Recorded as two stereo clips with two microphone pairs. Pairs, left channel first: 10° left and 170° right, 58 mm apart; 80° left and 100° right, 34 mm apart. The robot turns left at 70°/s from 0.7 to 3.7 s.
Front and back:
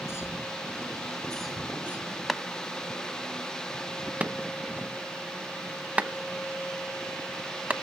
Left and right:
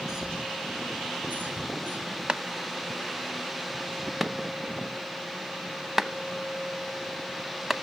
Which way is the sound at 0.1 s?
25° right.